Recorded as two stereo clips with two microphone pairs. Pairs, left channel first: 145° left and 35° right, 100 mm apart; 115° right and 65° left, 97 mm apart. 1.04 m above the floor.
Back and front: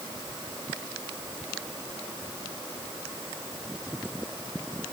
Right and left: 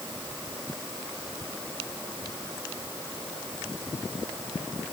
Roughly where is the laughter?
No laughter in this recording.